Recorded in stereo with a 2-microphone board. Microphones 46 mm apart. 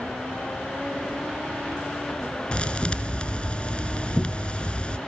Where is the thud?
20° left (ahead or behind), 2.5 m.